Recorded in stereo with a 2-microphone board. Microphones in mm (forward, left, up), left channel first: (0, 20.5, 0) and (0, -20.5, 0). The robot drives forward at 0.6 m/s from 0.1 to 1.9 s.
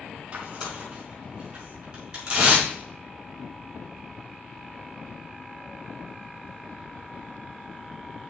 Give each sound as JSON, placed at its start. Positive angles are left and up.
{"t": 0.3, "sound": "tearing paper", "side_deg": -30, "distance_m": 4.0}